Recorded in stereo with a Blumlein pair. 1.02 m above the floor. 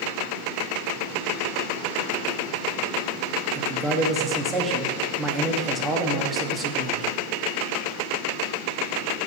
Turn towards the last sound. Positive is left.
turn(degrees=-15)